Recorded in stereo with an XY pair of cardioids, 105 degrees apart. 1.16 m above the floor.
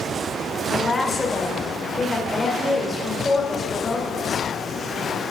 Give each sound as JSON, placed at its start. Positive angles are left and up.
{"t": 0.7, "sound": "a woman speaking", "azimuth_deg": 25, "distance_m": 3.5}